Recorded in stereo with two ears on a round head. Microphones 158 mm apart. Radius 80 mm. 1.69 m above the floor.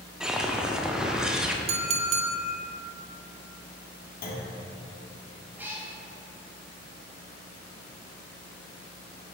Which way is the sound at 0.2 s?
5° right (ahead or behind).